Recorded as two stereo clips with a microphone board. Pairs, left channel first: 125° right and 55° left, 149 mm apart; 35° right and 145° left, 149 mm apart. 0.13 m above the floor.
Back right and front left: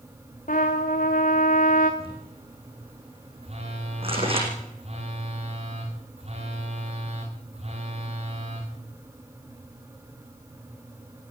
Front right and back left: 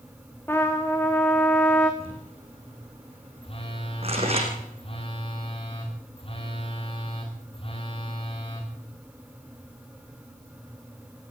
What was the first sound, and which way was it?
A trumpet, 110° right.